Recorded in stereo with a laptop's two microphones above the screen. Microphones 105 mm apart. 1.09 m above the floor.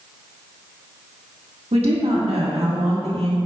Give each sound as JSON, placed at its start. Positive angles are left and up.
{"t": 1.7, "sound": "a woman speaking", "side_deg": -80, "distance_m": 1.7}